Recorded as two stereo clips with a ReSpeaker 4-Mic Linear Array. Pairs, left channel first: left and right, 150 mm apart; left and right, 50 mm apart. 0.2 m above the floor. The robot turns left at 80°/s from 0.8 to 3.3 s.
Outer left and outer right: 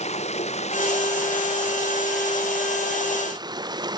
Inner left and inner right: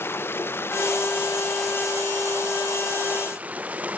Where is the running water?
50° left; by 4.0 s 150° right.